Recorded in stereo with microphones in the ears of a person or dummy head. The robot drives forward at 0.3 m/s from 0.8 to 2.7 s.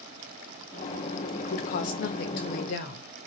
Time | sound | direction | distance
1.4 | a woman speaking | 45° left (ahead or behind) | 0.7 m